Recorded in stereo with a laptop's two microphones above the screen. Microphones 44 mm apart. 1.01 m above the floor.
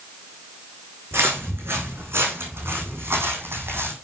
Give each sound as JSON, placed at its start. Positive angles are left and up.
{"t": 1.1, "sound": "footsteps", "side_deg": -65, "distance_m": 4.0}